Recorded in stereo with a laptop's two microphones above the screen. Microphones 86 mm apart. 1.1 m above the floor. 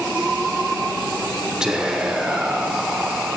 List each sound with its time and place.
1.6 s whispering: 5° right (ahead or behind), 0.9 m